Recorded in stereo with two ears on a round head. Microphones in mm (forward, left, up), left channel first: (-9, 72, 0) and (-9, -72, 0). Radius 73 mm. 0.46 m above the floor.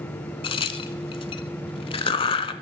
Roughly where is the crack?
Left.